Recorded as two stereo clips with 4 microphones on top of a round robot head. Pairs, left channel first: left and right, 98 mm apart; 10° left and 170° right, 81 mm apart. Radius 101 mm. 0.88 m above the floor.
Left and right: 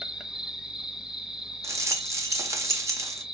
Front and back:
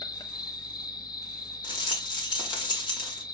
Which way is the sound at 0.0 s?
5° right.